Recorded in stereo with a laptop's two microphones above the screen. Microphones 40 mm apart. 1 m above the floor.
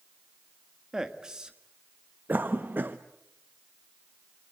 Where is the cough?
45° right (ahead or behind), 0.7 m.